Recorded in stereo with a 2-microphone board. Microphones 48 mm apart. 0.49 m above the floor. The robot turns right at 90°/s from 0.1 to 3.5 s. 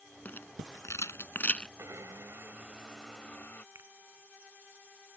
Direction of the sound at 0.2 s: 35° left (ahead or behind).